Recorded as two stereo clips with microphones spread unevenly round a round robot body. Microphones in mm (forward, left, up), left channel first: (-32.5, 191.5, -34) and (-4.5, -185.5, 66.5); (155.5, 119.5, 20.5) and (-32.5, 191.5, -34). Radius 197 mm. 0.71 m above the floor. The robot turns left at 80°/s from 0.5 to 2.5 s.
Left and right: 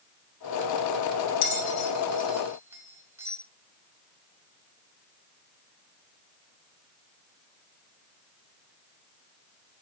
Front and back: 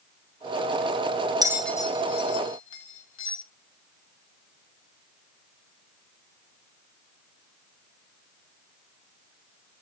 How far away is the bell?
About 1.0 m.